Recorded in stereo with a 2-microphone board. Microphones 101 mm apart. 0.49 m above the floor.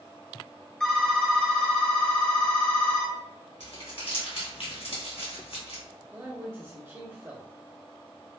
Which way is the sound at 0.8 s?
10° left (ahead or behind).